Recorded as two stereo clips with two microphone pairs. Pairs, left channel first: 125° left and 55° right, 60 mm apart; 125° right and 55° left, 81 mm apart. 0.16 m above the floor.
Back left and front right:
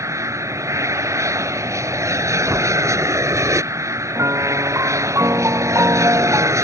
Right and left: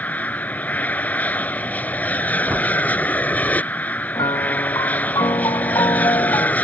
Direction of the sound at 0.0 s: 55° right.